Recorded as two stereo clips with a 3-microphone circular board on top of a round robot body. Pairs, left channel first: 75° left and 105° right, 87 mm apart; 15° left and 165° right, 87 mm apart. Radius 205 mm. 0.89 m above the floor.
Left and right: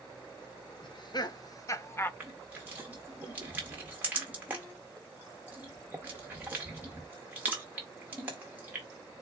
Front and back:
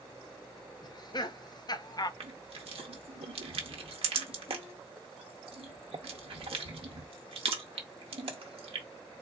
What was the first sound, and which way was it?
Laughter, 50° left.